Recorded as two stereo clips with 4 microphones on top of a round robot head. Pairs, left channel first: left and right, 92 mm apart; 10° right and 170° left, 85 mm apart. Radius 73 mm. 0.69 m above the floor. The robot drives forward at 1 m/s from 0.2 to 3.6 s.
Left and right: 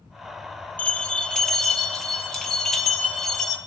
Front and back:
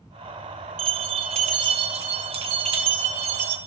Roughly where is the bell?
Behind.